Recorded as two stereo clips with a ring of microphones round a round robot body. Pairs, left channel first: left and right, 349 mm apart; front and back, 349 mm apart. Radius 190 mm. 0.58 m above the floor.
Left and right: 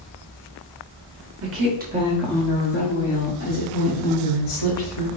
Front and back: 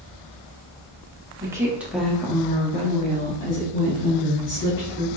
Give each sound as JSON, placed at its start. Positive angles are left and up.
{"t": 1.4, "sound": "a woman speaking", "azimuth_deg": -105, "distance_m": 1.2}